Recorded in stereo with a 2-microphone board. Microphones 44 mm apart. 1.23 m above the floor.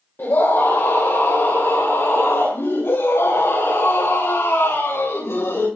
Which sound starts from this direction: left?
A scream, at 0.2 s.